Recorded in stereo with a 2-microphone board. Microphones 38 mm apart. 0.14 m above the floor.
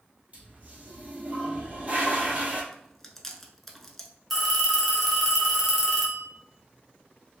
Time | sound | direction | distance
0.3 | a toilet flushing | 40° right (ahead or behind) | 1.3 m
2.7 | chewing | 5° left (ahead or behind) | 0.5 m
4.3 | a phone ringing | centre (ahead or behind) | 0.9 m